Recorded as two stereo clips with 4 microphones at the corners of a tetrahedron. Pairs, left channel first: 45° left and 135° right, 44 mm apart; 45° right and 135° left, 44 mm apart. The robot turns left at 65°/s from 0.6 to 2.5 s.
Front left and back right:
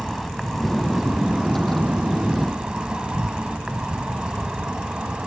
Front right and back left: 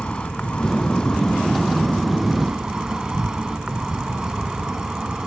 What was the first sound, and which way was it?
An insect, 50° right.